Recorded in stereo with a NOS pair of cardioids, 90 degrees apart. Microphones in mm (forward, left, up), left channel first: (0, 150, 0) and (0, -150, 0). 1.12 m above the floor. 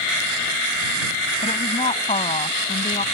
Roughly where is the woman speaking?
Ahead.